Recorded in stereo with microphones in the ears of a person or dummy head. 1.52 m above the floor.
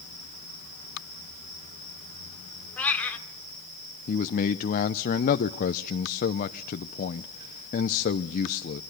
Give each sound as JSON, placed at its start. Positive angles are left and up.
{"t": 2.8, "sound": "a cat meowing", "side_deg": 10, "distance_m": 2.0}
{"t": 4.1, "sound": "a man speaking", "side_deg": 50, "distance_m": 0.8}